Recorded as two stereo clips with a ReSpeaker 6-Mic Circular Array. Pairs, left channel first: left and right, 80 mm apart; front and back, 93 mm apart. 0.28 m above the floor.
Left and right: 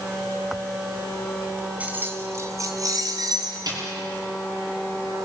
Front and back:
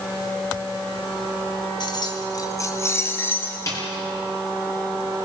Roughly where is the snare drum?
Ahead right.